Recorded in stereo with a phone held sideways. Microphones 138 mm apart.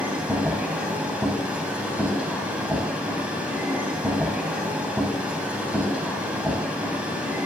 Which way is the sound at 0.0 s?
5° right (ahead or behind).